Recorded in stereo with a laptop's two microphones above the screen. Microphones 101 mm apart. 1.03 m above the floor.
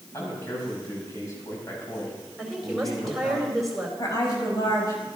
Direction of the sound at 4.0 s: 35° left (ahead or behind).